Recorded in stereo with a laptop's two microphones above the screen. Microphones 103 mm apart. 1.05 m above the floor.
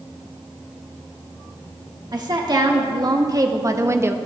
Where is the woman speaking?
45° right (ahead or behind), 1.5 m; by 4.2 s 20° right (ahead or behind), 0.5 m.